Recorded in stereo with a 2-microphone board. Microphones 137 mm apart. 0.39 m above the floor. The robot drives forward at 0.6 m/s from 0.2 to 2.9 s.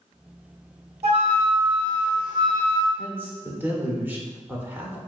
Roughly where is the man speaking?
Centre.